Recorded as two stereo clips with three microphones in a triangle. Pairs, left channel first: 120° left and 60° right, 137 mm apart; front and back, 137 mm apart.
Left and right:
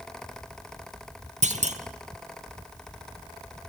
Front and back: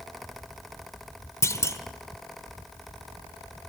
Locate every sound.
1.4 s a clunk: 65° right, 1.2 m